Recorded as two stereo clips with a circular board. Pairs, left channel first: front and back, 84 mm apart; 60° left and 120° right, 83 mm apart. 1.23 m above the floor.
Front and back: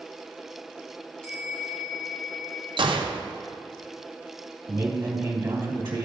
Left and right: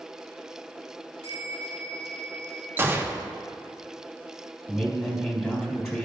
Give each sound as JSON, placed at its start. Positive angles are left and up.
{"t": 1.2, "sound": "a bell", "azimuth_deg": -80, "distance_m": 1.8}
{"t": 2.8, "sound": "a gunshot", "azimuth_deg": 175, "distance_m": 0.5}
{"t": 4.7, "sound": "a man speaking", "azimuth_deg": 125, "distance_m": 1.5}